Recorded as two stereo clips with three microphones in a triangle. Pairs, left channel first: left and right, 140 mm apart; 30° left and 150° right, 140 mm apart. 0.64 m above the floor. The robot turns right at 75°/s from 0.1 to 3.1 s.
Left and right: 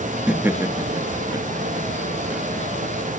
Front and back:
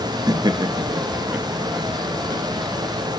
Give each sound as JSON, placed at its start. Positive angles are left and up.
{"t": 0.3, "sound": "laughter", "azimuth_deg": -170, "distance_m": 0.6}